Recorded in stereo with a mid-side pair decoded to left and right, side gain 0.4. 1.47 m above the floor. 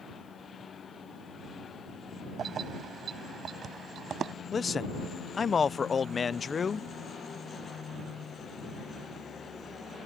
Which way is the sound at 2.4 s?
60° right.